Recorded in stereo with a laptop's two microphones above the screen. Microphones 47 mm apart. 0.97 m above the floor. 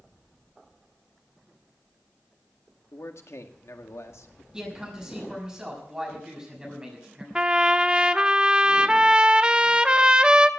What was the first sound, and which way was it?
A man speaking, 75° left (ahead or behind).